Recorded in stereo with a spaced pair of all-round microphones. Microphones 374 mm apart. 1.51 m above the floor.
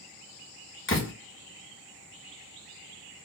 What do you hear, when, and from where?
0.9 s a door slam: 30° left (ahead or behind), 1.3 m